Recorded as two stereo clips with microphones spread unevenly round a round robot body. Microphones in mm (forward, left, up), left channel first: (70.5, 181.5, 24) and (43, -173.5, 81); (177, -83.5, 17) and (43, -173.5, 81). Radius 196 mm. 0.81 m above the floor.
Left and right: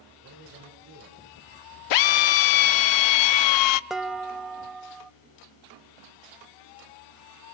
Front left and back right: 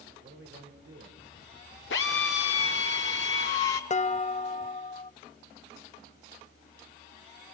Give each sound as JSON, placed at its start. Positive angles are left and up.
{"t": 0.2, "sound": "a man speaking", "azimuth_deg": -155, "distance_m": 3.0}
{"t": 1.9, "sound": "a drill", "azimuth_deg": 80, "distance_m": 0.5}
{"t": 3.9, "sound": "dishes clattering", "azimuth_deg": 0, "distance_m": 0.7}